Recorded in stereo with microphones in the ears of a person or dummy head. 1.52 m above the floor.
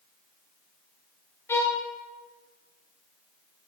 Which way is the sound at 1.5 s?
15° left (ahead or behind).